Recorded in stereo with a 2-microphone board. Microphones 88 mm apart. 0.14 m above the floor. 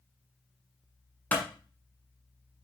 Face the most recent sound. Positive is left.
turn(degrees=20)  # may be behind; listen again after turning